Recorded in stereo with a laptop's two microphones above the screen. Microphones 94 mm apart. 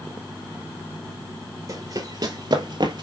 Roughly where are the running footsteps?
Right.